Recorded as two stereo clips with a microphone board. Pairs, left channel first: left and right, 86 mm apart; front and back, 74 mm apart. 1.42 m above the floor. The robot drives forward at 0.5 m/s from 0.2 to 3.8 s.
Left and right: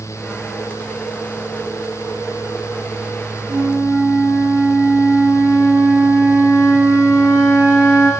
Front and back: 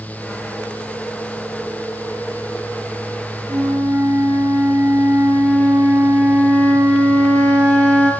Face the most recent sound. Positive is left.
turn(degrees=-155)